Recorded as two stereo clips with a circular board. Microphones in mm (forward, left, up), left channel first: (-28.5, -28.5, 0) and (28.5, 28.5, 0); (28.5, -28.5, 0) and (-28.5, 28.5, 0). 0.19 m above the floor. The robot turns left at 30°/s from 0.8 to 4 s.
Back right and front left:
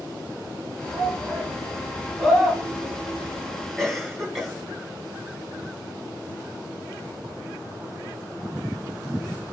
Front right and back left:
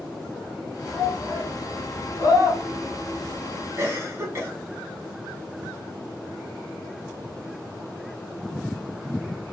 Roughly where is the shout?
Ahead.